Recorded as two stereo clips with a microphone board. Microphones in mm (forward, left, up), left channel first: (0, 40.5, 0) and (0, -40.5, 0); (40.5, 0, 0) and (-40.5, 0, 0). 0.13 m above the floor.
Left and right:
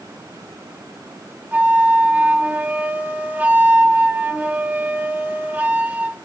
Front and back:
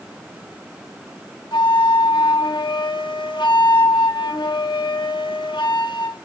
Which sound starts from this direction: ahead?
A flute, at 1.5 s.